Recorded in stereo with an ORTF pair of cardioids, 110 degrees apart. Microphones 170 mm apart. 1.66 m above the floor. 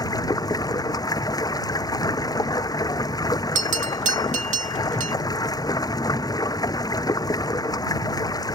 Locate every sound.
0.0 s running water: 20° left
3.5 s a bell: 45° right